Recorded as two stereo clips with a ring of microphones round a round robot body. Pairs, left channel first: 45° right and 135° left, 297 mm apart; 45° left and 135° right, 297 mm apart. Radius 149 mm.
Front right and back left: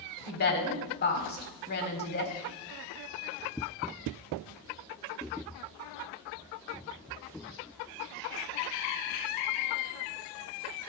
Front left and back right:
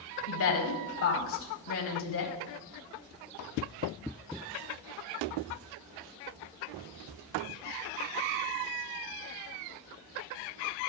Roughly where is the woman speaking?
Ahead.